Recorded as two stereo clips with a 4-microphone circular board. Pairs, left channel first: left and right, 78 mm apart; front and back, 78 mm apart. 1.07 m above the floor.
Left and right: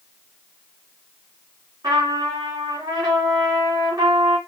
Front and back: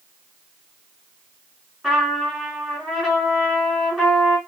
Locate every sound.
1.8 s a trumpet: 95° right, 3 m